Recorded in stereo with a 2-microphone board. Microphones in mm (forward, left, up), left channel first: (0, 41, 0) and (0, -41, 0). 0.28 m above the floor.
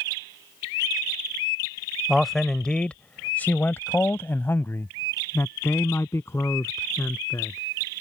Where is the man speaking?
Centre (ahead or behind); by 7.6 s 35° left (ahead or behind).